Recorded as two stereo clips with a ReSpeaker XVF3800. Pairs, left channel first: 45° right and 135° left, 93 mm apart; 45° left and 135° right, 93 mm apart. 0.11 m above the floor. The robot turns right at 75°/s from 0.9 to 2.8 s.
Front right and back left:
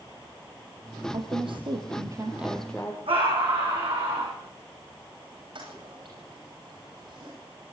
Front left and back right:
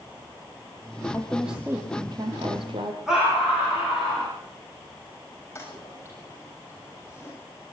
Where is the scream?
140° left, 6.5 m.